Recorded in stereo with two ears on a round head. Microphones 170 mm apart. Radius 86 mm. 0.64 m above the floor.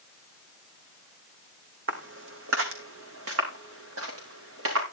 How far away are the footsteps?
About 2.0 m.